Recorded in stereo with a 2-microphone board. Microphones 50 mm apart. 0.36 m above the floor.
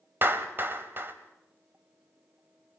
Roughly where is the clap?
Right.